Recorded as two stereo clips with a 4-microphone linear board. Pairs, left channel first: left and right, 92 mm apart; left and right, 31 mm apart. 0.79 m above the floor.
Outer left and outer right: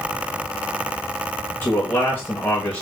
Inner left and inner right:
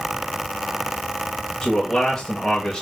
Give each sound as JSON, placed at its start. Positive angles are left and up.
{"t": 1.6, "sound": "a man speaking", "side_deg": 20, "distance_m": 1.1}